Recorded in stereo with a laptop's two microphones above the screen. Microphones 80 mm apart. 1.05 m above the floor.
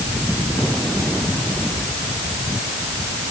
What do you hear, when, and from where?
Only background noise.